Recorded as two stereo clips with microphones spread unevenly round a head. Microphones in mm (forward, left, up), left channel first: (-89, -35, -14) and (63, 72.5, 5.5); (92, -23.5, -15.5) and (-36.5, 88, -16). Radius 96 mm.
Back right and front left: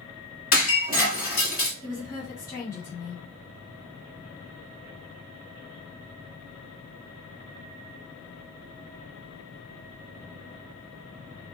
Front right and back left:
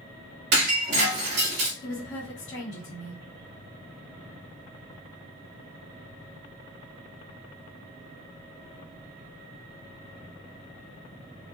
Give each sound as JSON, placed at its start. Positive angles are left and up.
{"t": 0.5, "sound": "breaking glass", "azimuth_deg": 175, "distance_m": 2.0}
{"t": 1.8, "sound": "a woman speaking", "azimuth_deg": -70, "distance_m": 2.5}